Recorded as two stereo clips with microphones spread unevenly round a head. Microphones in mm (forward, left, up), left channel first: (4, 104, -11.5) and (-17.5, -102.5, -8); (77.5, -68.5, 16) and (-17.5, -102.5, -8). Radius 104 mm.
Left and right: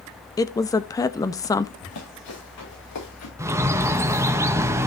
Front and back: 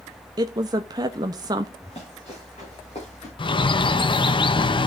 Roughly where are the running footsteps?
Left.